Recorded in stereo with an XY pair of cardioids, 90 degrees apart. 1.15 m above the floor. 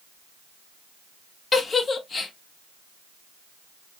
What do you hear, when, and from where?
1.5 s a giggle: 45° left, 0.7 m